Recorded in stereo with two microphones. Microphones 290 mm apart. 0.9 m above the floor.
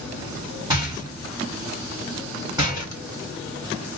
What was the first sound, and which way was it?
A rattle, 15° right (ahead or behind).